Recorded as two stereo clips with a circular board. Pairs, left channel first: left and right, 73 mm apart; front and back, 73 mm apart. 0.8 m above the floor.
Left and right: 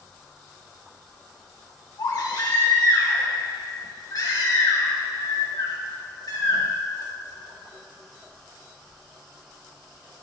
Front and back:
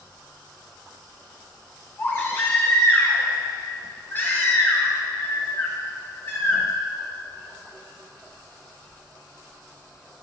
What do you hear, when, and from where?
2.0 s a baby crying: 60° left, 2.5 m